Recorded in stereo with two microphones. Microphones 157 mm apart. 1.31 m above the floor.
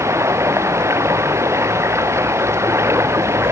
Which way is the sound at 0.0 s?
15° right (ahead or behind).